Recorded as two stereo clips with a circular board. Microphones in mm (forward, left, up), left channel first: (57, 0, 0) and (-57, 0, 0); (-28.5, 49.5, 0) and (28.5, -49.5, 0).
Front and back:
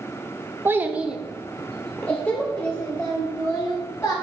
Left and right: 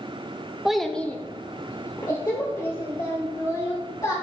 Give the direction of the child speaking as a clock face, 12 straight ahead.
5 o'clock.